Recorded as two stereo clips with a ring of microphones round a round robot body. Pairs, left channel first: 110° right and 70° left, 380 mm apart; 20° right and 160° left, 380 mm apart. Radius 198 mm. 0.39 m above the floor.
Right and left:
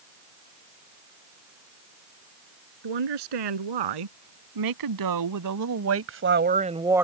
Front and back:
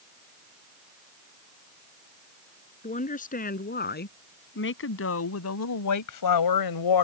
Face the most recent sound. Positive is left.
turn(degrees=-20)